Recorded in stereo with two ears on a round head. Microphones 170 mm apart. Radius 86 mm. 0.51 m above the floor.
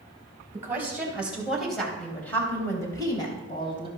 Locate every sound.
0.5 s a woman speaking: 15° right (ahead or behind), 3.5 m; by 3.9 s 30° left (ahead or behind), 3.5 m